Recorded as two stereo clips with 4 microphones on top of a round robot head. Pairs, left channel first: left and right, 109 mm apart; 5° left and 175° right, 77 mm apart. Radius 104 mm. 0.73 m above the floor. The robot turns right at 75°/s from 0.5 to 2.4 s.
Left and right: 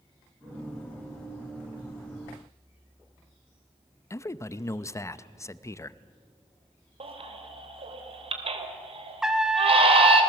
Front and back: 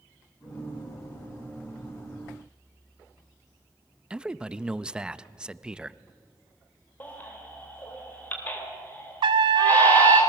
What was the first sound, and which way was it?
A man speaking, 115° left.